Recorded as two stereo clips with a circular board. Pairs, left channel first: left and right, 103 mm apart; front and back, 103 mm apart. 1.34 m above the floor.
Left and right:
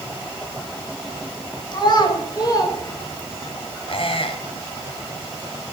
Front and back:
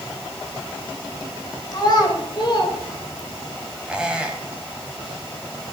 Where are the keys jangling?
No keys jangling in this recording.